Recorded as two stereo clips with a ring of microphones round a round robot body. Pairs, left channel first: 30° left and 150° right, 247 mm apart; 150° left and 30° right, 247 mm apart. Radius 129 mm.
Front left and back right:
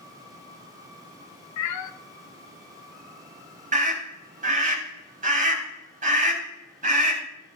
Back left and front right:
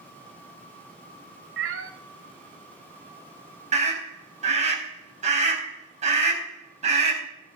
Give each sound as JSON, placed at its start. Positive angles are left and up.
{"t": 1.6, "sound": "a cat meowing", "azimuth_deg": 10, "distance_m": 0.8}
{"t": 3.7, "sound": "a scream", "azimuth_deg": -90, "distance_m": 4.0}